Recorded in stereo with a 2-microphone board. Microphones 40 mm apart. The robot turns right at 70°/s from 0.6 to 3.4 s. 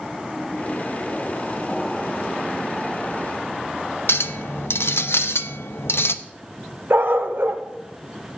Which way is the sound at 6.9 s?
65° right (ahead or behind).